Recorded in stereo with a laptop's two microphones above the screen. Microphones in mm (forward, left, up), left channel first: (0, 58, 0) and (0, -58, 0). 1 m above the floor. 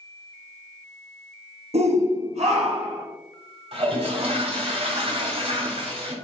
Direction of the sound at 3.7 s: 60° right (ahead or behind).